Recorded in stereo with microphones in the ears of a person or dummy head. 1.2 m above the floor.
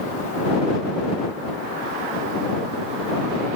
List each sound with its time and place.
Only background noise.